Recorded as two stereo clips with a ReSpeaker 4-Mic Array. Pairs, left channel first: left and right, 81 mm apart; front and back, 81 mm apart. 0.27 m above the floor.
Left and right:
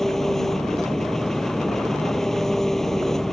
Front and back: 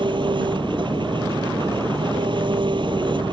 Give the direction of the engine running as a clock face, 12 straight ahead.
6 o'clock.